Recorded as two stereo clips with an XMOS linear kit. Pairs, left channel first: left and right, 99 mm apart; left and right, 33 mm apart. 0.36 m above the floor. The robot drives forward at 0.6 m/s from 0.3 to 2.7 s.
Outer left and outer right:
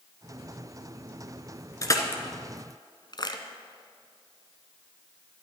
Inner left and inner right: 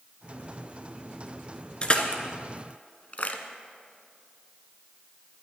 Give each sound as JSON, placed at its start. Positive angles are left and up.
{"t": 1.8, "sound": "crushing", "side_deg": 35, "distance_m": 1.6}